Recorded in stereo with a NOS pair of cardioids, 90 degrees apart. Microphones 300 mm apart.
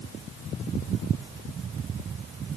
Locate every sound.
Only background noise.